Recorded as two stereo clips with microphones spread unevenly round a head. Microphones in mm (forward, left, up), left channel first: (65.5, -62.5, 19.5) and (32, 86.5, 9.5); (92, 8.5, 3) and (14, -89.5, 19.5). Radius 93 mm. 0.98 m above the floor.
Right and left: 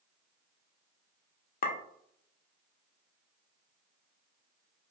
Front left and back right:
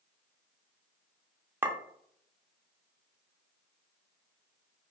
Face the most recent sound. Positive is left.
turn(degrees=-55)